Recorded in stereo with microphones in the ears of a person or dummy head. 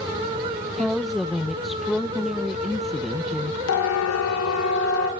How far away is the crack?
No crack in this recording.